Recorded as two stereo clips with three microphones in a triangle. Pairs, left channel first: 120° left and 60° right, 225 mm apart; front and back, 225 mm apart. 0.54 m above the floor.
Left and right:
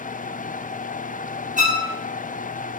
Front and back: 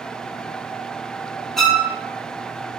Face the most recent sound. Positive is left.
turn(degrees=-90)